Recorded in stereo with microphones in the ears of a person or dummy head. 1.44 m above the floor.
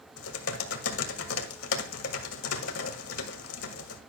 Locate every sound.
0.2 s typing on a keyboard: 85° left, 1.7 m